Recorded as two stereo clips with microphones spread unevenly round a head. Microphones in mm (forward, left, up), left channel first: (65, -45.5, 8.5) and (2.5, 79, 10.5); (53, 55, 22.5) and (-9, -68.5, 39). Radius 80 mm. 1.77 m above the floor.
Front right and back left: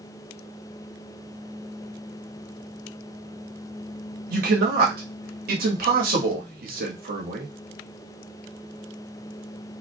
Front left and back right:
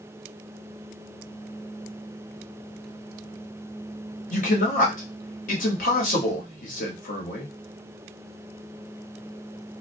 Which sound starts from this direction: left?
A man speaking, at 4.3 s.